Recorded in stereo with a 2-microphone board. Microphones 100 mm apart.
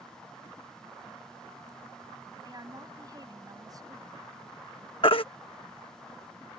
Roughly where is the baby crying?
Left.